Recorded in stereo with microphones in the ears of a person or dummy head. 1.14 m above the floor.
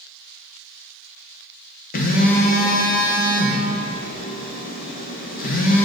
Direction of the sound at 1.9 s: 45° left (ahead or behind).